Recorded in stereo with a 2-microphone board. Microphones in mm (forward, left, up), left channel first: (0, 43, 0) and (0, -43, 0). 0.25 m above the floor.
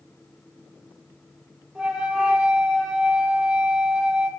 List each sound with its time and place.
1.8 s a flute: 10° right (ahead or behind), 2 m